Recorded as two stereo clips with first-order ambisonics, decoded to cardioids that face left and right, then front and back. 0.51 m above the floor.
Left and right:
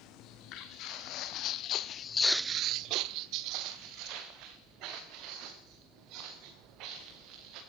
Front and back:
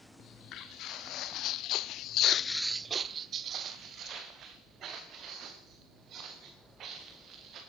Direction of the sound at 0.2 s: 50° left.